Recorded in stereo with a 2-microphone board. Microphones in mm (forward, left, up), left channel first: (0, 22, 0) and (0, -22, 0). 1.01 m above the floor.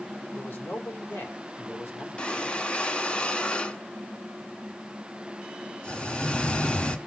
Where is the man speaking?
70° left (ahead or behind), 3 m.